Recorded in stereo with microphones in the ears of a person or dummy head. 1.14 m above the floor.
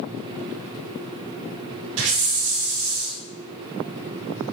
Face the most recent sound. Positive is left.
turn(degrees=-80)